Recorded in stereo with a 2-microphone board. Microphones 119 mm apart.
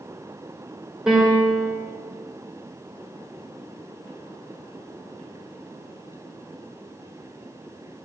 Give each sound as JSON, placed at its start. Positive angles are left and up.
{"t": 1.1, "sound": "a piano", "side_deg": -5, "distance_m": 3.0}